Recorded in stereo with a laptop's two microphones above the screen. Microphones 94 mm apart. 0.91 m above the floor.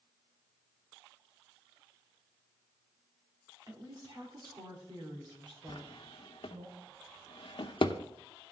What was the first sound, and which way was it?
A woman speaking, 40° right (ahead or behind).